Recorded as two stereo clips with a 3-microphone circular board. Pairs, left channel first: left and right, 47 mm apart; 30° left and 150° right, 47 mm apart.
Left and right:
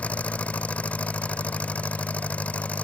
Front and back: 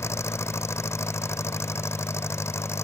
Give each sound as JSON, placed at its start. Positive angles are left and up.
{"t": 0.0, "sound": "an engine running", "azimuth_deg": 30}